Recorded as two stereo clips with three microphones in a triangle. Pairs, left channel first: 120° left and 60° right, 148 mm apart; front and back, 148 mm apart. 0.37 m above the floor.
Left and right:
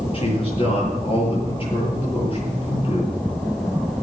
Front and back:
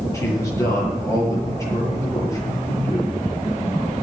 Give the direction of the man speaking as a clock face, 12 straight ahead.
10 o'clock.